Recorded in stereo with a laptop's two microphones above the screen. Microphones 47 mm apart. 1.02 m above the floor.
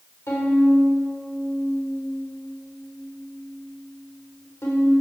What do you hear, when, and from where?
0.3 s a violin: 80° left, 4 m